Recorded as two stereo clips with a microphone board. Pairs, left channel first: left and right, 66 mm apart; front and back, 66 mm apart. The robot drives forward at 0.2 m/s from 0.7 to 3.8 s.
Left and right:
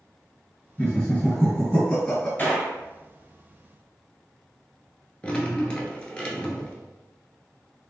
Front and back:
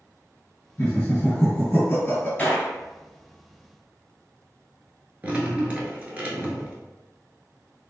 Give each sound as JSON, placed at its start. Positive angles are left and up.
{"t": 0.8, "sound": "laughter", "azimuth_deg": 25, "distance_m": 1.8}
{"t": 2.4, "sound": "a gunshot", "azimuth_deg": 50, "distance_m": 1.4}
{"t": 5.2, "sound": "dripping", "azimuth_deg": 145, "distance_m": 0.8}